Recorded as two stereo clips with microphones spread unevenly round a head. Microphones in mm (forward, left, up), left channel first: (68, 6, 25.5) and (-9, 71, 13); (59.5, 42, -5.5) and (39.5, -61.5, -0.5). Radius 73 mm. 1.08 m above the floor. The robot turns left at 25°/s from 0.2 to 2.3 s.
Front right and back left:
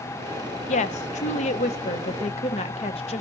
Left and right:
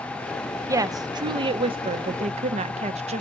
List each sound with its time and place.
0.7 s a woman speaking: 35° right, 0.6 m; by 3.2 s 80° right, 0.6 m